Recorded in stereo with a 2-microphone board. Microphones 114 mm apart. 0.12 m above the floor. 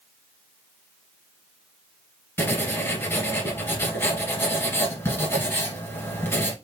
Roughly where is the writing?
Left.